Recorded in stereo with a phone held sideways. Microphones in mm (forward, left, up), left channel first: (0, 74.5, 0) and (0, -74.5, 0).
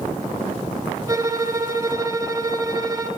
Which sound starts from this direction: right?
A violin, at 1.1 s.